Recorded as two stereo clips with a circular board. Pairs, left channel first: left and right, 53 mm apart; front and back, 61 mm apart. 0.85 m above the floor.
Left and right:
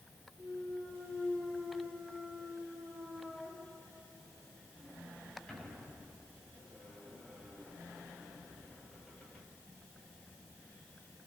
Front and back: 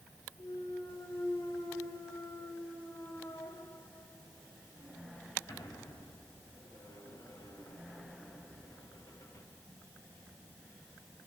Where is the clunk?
15° left, 6 m.